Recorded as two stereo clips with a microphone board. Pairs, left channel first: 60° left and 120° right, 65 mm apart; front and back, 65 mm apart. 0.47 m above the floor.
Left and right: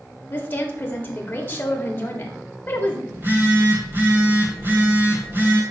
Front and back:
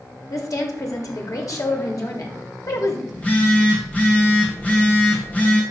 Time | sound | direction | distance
0.3 | a woman speaking | 5° left | 1.4 m
3.1 | a phone buzzing | 65° right | 2 m